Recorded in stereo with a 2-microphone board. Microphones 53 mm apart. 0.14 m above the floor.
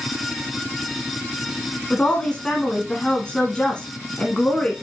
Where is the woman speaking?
20° left (ahead or behind), 1.3 m.